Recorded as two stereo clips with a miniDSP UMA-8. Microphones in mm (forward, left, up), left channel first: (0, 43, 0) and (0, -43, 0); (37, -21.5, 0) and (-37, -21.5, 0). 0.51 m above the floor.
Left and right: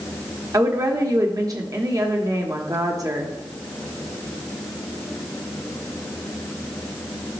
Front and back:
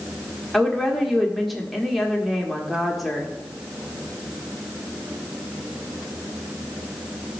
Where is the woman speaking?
90° right, 1.3 m.